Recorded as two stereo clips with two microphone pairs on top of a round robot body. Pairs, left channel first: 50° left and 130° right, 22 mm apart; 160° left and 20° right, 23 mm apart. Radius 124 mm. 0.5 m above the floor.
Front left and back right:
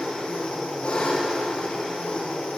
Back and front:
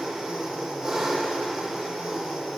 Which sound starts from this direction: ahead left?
An engine running, at 0.0 s.